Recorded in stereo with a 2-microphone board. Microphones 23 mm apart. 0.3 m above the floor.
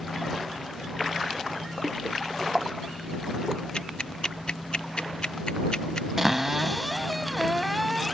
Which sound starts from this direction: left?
Ticking, at 3.7 s.